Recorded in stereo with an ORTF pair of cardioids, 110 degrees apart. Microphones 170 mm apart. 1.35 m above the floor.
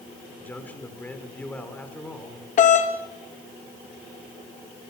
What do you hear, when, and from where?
0.4 s a man speaking: 10° left, 4.5 m
2.6 s a doorbell: 50° left, 2.5 m